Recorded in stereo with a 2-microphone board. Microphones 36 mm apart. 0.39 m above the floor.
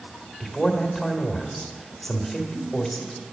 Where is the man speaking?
5° left (ahead or behind), 1.7 m.